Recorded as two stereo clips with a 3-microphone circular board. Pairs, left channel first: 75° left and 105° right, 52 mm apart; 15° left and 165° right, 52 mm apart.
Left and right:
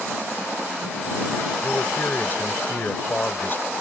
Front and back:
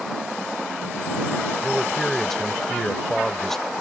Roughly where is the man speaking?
Left.